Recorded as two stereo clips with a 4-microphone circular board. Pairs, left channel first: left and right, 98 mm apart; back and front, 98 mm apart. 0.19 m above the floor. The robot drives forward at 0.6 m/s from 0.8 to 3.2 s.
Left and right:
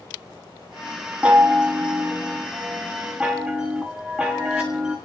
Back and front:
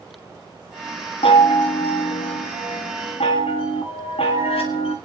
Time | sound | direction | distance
1.2 | a chime | 170° right | 1.2 m